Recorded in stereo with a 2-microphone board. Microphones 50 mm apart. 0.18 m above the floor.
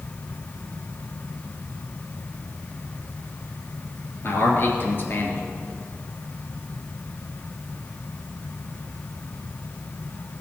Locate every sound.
4.2 s a man speaking: 45° left (ahead or behind), 3 m